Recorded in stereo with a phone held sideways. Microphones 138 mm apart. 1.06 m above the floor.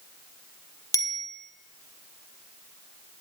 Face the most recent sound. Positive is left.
turn(degrees=25)  # may be behind; listen again after turning